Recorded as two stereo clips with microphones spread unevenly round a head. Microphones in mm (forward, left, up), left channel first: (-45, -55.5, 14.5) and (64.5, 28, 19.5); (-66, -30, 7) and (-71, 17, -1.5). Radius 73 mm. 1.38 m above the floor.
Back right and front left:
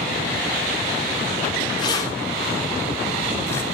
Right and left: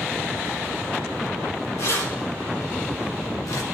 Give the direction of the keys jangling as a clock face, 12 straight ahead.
3 o'clock.